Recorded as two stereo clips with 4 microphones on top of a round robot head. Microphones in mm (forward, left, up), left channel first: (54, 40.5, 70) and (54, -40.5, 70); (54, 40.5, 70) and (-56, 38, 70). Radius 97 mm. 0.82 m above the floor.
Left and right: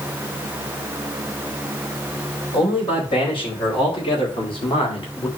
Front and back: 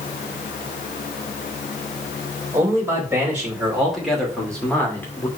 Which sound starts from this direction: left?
A man speaking, at 2.5 s.